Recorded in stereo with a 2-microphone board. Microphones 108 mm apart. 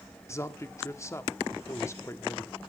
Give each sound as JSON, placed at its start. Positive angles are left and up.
{"t": 0.3, "sound": "a man speaking", "side_deg": 25, "distance_m": 1.0}